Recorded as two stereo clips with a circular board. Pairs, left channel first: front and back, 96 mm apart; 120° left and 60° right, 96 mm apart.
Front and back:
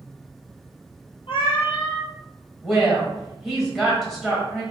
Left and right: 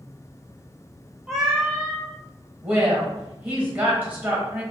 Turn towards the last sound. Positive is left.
turn(degrees=-100)